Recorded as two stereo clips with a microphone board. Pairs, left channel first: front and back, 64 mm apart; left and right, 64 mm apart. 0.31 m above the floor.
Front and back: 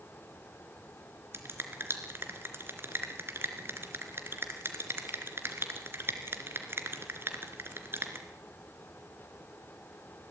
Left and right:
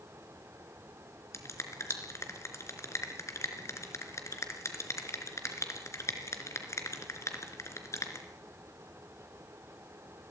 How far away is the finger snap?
About 3 m.